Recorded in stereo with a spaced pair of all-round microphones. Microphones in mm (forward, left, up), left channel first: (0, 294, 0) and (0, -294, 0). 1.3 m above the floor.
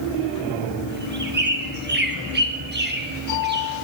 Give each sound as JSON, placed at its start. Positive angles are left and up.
{"t": 0.9, "sound": "a bird", "side_deg": -20, "distance_m": 0.9}